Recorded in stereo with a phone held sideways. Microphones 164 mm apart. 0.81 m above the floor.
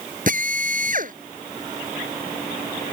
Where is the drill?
55° right (ahead or behind).